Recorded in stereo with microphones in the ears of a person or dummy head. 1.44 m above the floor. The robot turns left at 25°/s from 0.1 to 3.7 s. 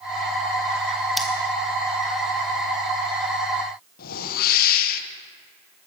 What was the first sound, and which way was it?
Scissors, centre (ahead or behind).